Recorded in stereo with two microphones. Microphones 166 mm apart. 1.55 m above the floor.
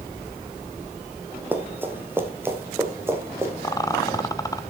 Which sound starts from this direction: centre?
Running footsteps, at 1.5 s.